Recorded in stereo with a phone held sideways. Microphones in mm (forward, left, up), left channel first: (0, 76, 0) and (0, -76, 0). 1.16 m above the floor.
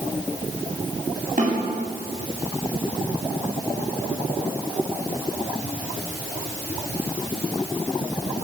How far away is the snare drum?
About 8 m.